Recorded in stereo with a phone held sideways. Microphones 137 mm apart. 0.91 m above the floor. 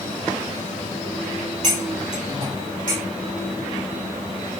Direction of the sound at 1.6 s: 65° right (ahead or behind).